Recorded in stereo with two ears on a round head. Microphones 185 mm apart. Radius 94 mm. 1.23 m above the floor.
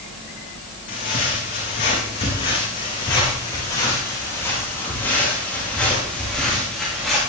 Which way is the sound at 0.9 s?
40° left (ahead or behind).